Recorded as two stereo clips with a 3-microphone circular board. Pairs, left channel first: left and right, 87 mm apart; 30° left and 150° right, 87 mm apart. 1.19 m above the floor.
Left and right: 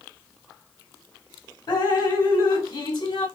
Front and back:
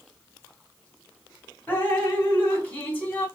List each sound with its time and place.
1.7 s dripping: 100° left, 2 m